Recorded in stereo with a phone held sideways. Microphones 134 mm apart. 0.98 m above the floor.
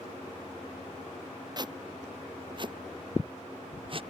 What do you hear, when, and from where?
1.6 s footsteps: 30° right (ahead or behind); by 4.0 s 40° right (ahead or behind)